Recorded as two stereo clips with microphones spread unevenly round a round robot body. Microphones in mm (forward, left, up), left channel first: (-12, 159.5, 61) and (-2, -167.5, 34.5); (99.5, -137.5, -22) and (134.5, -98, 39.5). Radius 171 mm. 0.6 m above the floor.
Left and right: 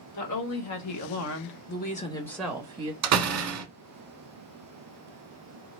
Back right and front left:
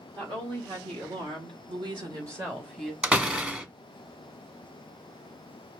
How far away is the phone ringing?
No phone ringing in this recording.